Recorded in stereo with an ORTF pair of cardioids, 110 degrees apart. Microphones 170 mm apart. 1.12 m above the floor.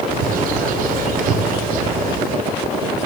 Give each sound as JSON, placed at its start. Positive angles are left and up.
{"t": 0.1, "sound": "a bird", "azimuth_deg": -60, "distance_m": 2.5}